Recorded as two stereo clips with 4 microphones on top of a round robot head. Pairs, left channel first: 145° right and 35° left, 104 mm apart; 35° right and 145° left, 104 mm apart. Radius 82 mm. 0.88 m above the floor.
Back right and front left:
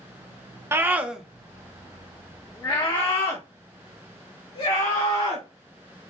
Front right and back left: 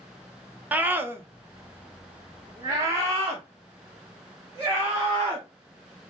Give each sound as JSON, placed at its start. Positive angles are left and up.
{"t": 0.7, "sound": "a scream", "azimuth_deg": 80, "distance_m": 0.9}